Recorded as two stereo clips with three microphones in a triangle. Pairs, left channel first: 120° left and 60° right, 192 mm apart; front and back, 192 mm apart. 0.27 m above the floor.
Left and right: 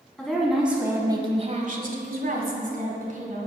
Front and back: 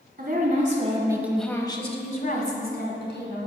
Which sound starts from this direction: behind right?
A woman speaking, at 0.2 s.